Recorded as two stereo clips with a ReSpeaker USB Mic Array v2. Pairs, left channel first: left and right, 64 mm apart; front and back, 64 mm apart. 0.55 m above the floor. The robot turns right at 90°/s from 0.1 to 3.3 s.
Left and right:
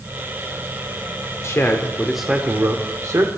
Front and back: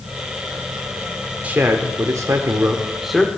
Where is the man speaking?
120° left, 1.1 m; by 3.3 s 75° right, 1.1 m.